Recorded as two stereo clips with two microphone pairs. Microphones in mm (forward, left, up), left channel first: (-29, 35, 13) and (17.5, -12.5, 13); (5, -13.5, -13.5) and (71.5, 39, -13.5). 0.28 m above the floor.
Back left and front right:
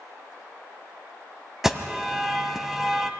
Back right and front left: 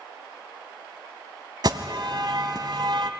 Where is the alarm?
40° left, 1.2 m.